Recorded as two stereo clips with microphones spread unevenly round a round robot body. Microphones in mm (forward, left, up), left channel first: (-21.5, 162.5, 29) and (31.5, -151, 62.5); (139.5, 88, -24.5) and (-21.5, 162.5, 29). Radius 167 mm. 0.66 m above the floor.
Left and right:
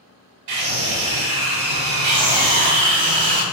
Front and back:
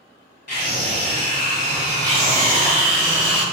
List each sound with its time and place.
0.5 s a scream: 80° right, 4 m
2.0 s a scream: 75° right, 4 m